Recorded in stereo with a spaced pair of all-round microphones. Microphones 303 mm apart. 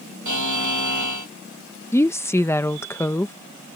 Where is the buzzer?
70° right (ahead or behind).